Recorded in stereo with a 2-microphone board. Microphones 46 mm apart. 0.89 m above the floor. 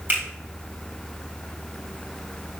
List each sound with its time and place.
0.1 s a finger snap: 35° right (ahead or behind), 4 m